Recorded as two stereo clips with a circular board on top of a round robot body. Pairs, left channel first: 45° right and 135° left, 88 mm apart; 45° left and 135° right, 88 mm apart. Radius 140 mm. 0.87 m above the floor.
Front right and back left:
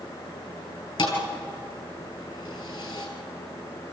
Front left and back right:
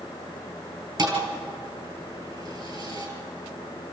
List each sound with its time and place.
1.0 s a thud: 90° right, 4 m